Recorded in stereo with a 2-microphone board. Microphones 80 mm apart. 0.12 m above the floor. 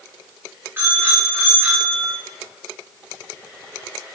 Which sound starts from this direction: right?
A bicycle bell, at 0.8 s.